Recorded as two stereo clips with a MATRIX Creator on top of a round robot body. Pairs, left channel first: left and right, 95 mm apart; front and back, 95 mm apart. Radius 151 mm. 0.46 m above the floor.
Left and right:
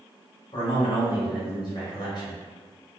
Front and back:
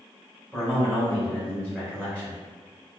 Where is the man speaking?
85° left, 1.3 m.